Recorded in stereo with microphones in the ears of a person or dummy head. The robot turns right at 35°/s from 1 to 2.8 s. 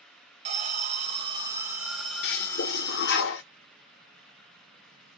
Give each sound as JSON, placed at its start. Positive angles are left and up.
{"t": 0.5, "sound": "an alarm", "azimuth_deg": -35, "distance_m": 0.7}
{"t": 2.2, "sound": "a toilet flushing", "side_deg": 60, "distance_m": 0.7}